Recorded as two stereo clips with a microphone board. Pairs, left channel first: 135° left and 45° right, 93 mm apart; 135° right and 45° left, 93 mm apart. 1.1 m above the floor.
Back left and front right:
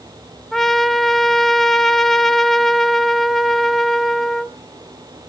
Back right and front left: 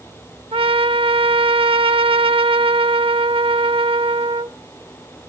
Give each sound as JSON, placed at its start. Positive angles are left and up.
{"t": 0.5, "sound": "a trumpet", "azimuth_deg": 50, "distance_m": 0.7}